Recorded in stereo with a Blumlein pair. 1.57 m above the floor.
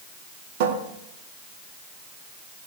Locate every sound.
0.6 s a cupboard door: 50° right, 1.9 m